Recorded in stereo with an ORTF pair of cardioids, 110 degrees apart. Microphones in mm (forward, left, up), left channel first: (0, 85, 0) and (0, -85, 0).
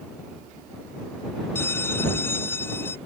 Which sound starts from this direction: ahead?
A bell, at 1.6 s.